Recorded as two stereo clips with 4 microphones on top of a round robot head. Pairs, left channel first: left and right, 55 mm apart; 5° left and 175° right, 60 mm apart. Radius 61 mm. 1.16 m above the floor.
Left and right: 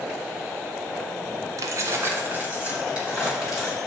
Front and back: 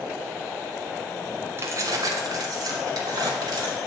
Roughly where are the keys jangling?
Behind right.